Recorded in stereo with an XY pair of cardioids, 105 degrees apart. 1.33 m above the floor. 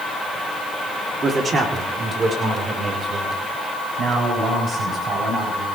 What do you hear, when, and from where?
1.2 s a man speaking: 40° right, 3.5 m; by 5.7 s 50° right, 10.5 m